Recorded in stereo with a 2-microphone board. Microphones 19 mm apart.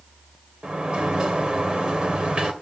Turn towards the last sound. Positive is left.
turn(degrees=-65)  # may be behind; listen again after turning